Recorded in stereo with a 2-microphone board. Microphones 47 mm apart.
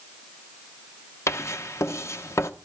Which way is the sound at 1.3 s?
80° left.